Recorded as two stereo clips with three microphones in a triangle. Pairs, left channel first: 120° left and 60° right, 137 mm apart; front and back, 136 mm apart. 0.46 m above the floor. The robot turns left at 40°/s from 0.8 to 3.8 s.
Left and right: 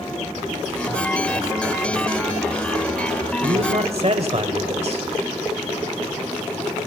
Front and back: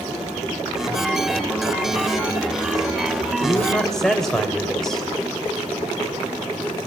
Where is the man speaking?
70° right, 2 m; by 5.1 s 85° right, 2 m.